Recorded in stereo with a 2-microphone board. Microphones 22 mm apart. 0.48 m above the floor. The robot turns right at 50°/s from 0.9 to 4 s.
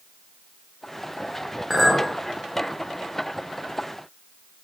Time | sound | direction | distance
1.7 | a clink | centre (ahead or behind) | 0.7 m